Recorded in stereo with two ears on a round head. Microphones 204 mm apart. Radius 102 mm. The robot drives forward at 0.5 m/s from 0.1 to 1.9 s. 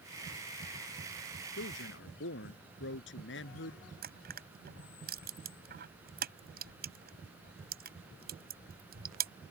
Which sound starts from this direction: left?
A man speaking, at 1.6 s.